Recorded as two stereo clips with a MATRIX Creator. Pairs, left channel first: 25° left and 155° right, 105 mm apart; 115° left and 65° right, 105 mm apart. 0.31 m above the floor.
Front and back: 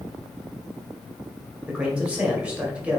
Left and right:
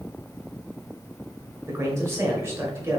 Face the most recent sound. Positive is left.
turn(degrees=-95)